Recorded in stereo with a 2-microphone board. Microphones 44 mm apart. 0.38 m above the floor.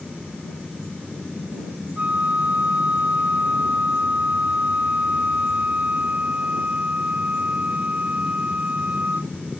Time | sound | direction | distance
0.0 | an aircraft | centre (ahead or behind) | ?
2.0 | a flute | 35° right (ahead or behind) | ?